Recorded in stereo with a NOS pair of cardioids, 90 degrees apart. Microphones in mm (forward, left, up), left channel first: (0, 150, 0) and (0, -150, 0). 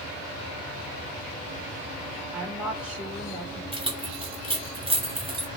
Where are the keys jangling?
20° right, 2.0 m.